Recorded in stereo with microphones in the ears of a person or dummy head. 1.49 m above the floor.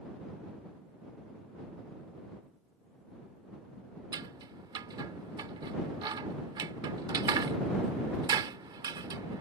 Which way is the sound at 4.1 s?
30° right (ahead or behind).